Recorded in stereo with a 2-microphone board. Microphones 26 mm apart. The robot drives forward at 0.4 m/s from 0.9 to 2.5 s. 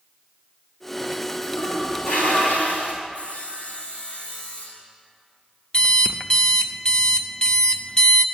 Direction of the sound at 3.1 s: 50° left (ahead or behind).